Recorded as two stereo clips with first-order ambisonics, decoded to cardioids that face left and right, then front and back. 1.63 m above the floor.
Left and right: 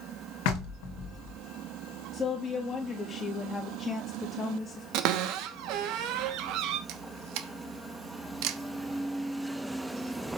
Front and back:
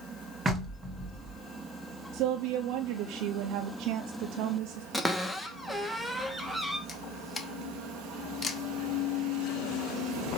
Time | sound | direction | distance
0.5 | knocking | 105° left | 1.6 m
2.1 | a woman speaking | 160° left | 0.8 m
4.9 | a cupboard door | 90° right | 1.0 m
6.9 | a camera shutter | 75° right | 0.9 m